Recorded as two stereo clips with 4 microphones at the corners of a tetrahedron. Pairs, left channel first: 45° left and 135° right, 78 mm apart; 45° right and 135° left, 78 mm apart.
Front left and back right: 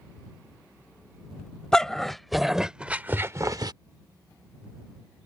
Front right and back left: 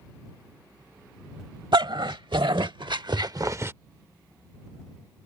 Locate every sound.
1.7 s a dog barking: 125° left; by 3.7 s 165° right